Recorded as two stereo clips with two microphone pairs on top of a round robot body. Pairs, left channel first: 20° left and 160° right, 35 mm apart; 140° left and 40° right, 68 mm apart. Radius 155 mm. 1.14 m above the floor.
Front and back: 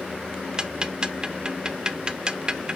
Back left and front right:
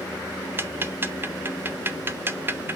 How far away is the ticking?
About 0.9 m.